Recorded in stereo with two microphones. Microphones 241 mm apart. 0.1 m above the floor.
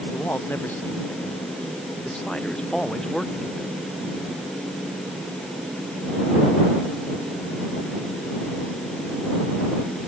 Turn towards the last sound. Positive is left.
turn(degrees=0)  # may be behind; listen again after turning